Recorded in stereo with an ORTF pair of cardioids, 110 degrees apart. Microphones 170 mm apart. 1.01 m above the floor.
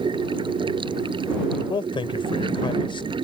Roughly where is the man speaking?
Ahead left.